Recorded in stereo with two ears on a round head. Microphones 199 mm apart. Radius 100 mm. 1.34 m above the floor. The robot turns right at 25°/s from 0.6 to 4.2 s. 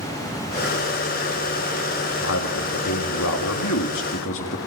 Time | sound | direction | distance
2.2 | a man speaking | 65° left | 2.5 m